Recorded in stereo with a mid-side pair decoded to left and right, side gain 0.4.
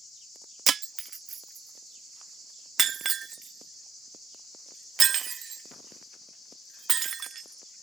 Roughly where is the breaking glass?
Ahead right.